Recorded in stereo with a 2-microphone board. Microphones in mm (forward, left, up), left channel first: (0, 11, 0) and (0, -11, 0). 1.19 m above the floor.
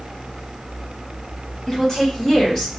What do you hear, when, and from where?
1.7 s a woman speaking: 30° left (ahead or behind), 1.8 m; by 2.7 s 25° left (ahead or behind), 1.2 m